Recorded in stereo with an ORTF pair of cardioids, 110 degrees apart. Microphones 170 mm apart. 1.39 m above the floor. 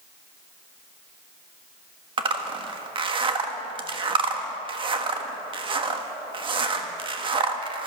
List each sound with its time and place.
2.2 s a zipper: 30° right, 1.4 m